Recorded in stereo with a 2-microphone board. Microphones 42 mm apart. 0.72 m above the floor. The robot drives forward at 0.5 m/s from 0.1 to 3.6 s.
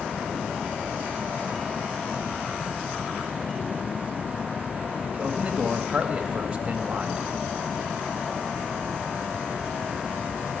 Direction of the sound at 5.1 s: 25° right (ahead or behind).